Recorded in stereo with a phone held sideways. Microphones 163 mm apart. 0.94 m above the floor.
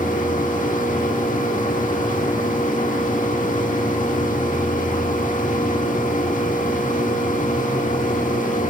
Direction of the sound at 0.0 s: 55° left (ahead or behind).